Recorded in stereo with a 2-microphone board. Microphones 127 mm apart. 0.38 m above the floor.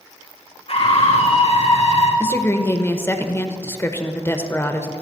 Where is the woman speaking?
20° left (ahead or behind), 0.8 m.